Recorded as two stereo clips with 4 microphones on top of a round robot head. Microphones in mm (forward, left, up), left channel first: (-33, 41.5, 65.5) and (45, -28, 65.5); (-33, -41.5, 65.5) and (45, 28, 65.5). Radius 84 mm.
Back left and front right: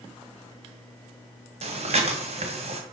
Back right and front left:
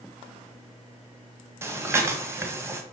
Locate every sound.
1.6 s breathing: 25° right, 1.9 m